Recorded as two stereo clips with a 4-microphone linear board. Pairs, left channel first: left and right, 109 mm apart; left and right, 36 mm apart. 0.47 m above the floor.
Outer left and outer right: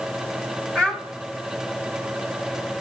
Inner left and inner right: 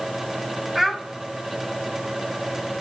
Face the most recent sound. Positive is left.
turn(degrees=5)  # may be behind; listen again after turning